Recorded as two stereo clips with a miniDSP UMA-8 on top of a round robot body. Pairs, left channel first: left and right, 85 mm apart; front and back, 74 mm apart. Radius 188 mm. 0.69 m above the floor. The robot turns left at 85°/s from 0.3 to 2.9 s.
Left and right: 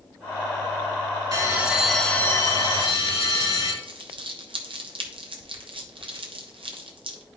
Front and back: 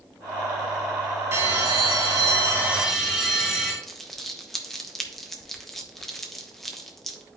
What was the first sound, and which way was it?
A bell, 135° right.